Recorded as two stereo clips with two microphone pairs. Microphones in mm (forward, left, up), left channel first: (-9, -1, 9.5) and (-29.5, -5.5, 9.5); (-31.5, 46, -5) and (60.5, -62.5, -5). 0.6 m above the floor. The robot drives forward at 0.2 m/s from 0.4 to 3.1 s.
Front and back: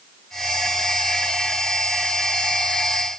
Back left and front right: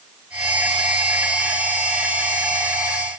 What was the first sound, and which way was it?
Only background noise.